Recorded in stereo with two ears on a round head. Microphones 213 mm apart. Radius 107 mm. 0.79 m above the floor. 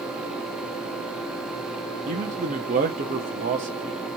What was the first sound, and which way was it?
A man speaking, 30° right (ahead or behind).